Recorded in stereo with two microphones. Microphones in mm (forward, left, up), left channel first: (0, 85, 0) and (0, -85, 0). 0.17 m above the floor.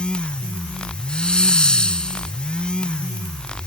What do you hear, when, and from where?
1.1 s a hiss: 5° left (ahead or behind)